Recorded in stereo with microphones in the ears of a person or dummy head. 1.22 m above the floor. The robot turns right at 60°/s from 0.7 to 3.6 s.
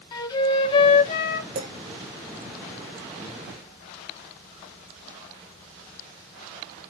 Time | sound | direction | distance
0.1 | a flute | 25° left | 0.9 m
1.6 | a clink | 50° right (ahead or behind) | 1.8 m